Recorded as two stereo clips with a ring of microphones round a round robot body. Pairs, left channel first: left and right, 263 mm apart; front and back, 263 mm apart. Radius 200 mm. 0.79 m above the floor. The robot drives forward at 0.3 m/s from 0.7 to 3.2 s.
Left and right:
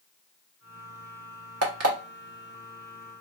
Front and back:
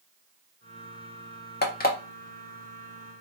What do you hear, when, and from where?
1.6 s an alarm clock: 55° right, 1.1 m; by 2.0 s 60° right, 1.0 m